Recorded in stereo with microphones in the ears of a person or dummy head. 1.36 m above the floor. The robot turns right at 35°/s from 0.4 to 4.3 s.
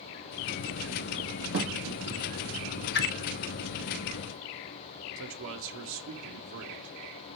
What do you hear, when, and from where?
1.5 s a thud: 50° right (ahead or behind), 2.0 m
2.9 s a whoosh: 50° left (ahead or behind), 0.9 m; by 3.1 s 55° left (ahead or behind), 0.9 m
5.2 s a man speaking: 65° right (ahead or behind), 1.3 m